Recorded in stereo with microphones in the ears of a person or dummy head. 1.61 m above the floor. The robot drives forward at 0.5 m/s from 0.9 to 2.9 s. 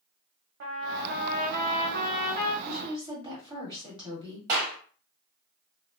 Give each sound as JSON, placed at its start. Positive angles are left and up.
{"t": 0.6, "sound": "a trumpet", "side_deg": -60, "distance_m": 0.7}
{"t": 2.6, "sound": "a woman speaking", "side_deg": -25, "distance_m": 1.1}
{"t": 4.5, "sound": "a clap", "side_deg": -40, "distance_m": 1.0}